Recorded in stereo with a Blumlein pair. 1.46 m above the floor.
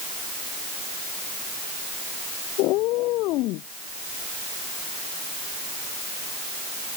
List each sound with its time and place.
2.6 s a cat meowing: 40° left